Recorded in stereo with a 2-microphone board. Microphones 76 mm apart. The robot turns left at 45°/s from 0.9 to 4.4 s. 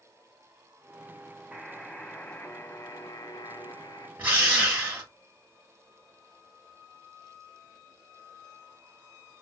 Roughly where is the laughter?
No laughter in this recording.